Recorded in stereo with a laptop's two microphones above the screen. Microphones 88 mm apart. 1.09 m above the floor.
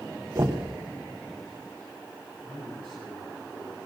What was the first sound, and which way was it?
Knocking, 35° right (ahead or behind).